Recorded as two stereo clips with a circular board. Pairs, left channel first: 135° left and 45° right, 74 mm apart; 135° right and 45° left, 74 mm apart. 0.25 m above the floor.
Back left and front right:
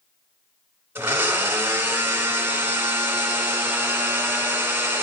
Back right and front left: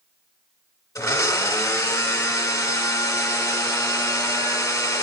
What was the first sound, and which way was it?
A blender, 100° right.